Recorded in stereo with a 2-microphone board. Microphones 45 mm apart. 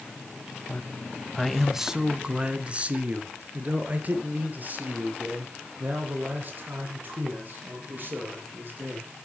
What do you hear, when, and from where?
0.7 s a man speaking: 35° left (ahead or behind), 1.2 m; by 9.1 s 45° right (ahead or behind), 8.5 m